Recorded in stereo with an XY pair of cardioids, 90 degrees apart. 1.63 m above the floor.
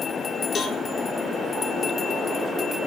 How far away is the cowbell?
About 2 m.